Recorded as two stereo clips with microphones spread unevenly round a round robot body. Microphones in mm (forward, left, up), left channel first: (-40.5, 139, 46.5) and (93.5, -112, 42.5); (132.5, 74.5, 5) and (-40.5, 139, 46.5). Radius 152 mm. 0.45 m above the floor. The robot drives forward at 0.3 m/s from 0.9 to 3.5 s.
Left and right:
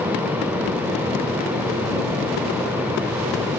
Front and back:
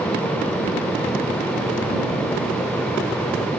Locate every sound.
Only background noise.